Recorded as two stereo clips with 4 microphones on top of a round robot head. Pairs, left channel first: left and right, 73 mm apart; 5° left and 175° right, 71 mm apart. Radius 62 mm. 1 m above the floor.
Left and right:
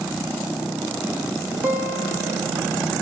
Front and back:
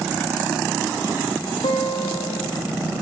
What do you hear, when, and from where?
1.6 s a guitar: 30° right, 3 m